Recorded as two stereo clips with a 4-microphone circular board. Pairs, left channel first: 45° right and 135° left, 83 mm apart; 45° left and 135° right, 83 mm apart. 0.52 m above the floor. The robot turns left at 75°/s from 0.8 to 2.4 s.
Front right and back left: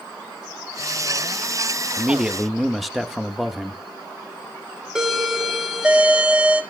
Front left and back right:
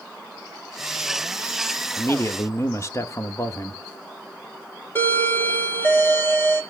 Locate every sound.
2.0 s a man speaking: 80° left, 0.7 m; by 3.8 s 45° left, 0.7 m
5.0 s a doorbell: 65° left, 1.6 m